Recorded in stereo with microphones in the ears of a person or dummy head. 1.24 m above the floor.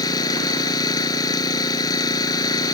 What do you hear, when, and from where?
0.0 s an engine running: 25° left (ahead or behind)